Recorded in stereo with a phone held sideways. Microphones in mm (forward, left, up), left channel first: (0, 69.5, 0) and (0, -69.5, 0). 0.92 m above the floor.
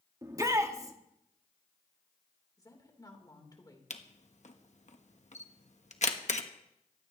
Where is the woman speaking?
30° left (ahead or behind), 3.5 m.